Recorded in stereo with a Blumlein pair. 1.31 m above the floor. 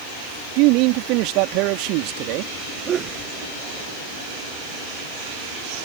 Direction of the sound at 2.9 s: 25° right.